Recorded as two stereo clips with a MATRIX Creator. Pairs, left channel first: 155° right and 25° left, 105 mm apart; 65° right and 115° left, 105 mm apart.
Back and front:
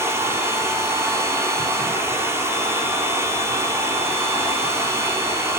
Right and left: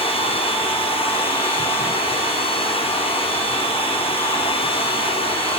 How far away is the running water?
About 3 m.